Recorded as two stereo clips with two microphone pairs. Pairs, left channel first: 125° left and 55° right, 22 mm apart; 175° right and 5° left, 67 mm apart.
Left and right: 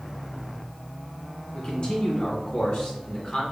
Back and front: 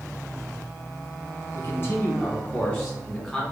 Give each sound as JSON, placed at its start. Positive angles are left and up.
{"t": 1.5, "sound": "a man speaking", "azimuth_deg": 150, "distance_m": 1.4}